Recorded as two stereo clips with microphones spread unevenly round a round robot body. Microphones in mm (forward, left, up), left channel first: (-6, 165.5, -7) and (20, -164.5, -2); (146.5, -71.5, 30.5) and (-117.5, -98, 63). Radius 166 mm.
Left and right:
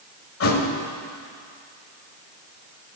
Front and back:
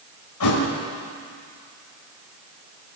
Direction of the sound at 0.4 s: 45° left.